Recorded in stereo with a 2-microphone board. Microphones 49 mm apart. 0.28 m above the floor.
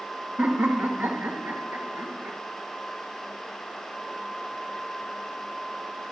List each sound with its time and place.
0.4 s laughter: 35° right (ahead or behind), 1.8 m; by 2.4 s 45° right (ahead or behind), 2.5 m